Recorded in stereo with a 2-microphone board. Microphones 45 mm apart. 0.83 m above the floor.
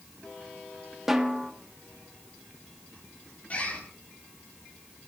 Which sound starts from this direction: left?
A bird, at 3.5 s.